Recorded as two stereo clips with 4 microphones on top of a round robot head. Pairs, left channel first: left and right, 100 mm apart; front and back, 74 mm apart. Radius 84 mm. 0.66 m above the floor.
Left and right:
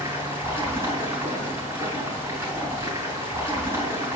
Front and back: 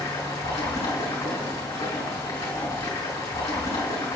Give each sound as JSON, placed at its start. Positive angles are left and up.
{"t": 0.0, "sound": "running water", "azimuth_deg": -25, "distance_m": 5.0}